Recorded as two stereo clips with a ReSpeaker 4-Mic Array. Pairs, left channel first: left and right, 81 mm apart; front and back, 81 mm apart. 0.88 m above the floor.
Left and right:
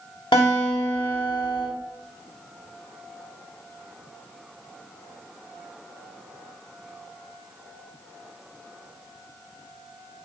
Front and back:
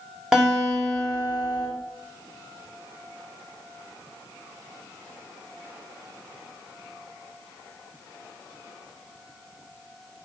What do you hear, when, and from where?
0.3 s a guitar: 95° left, 4 m